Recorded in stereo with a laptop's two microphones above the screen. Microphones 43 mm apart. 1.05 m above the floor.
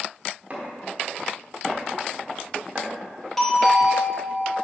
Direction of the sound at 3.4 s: 10° left (ahead or behind).